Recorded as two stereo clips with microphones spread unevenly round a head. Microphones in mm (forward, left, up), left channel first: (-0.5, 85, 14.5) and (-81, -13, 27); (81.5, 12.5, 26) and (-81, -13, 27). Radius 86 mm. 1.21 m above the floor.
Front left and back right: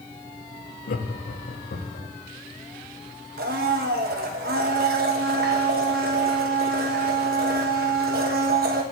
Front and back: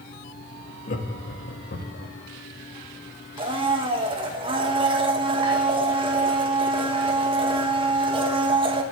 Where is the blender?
110° right, 1.3 m.